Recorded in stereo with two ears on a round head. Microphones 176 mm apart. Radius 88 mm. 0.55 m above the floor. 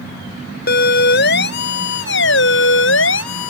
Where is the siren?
50° left (ahead or behind); by 3.5 s 75° left (ahead or behind).